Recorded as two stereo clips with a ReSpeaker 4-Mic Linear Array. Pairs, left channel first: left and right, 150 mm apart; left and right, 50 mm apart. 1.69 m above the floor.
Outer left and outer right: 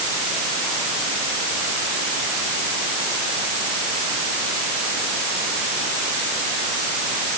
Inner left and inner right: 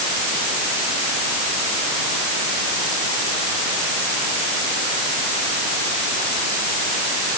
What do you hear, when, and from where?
Only background noise.